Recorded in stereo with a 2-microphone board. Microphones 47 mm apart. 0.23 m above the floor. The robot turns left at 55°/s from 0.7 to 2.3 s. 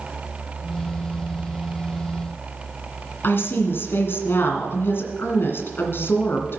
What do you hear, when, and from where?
3.2 s a woman speaking: 55° left (ahead or behind), 2 m